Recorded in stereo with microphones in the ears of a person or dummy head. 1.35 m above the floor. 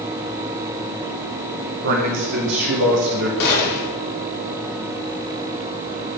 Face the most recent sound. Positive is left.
turn(degrees=60)  # may be behind; listen again after turning